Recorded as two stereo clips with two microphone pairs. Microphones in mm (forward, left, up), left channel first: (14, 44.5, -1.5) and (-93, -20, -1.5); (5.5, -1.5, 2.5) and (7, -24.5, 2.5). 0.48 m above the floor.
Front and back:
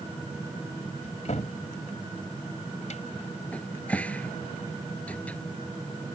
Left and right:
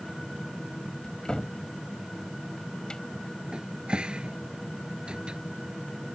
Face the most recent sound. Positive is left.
turn(degrees=-50)